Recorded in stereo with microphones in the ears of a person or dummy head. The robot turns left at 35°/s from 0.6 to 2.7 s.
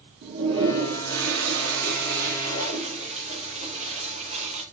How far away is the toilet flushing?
About 1.6 m.